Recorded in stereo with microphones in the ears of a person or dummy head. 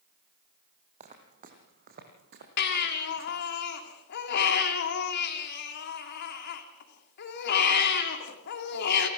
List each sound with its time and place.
1.0 s footsteps: 40° right (ahead or behind), 3.5 m; by 3.4 s 65° right (ahead or behind), 4 m
2.6 s a baby crying: 55° left (ahead or behind), 2 m